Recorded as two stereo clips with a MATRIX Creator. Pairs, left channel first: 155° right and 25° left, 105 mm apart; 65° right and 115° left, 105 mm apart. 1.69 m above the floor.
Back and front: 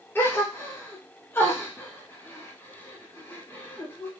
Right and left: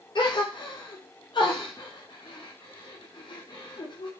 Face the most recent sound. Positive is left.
turn(degrees=-95)